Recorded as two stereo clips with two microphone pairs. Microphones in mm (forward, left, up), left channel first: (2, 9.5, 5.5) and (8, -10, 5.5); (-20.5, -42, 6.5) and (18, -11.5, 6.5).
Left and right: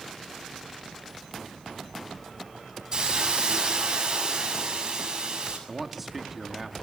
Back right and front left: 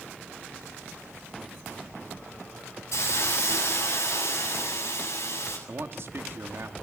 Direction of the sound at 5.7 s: 5° left.